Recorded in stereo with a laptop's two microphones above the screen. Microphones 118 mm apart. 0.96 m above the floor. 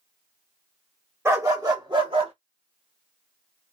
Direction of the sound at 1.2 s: 25° right (ahead or behind).